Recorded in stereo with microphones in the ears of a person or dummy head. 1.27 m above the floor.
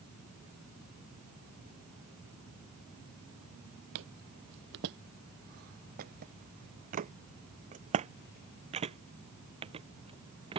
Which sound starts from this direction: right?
Footsteps, at 4.0 s.